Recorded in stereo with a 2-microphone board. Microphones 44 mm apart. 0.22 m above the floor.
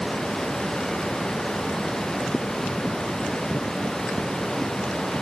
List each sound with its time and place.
Only background noise.